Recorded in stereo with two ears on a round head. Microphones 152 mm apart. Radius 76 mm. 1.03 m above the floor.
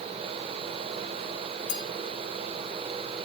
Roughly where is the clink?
Left.